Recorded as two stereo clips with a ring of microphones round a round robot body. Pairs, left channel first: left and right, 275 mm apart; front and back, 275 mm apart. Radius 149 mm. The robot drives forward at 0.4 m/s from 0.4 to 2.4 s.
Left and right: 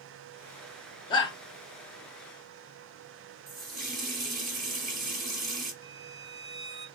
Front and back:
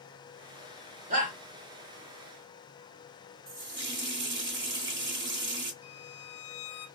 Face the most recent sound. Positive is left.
turn(degrees=110)